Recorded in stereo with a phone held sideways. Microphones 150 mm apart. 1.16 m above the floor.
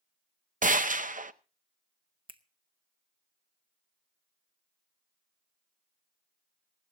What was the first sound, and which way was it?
A gunshot, 65° right (ahead or behind).